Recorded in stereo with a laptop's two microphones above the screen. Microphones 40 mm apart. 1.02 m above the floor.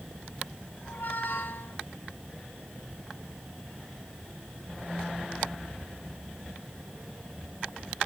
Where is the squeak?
60° left (ahead or behind), 1.2 m.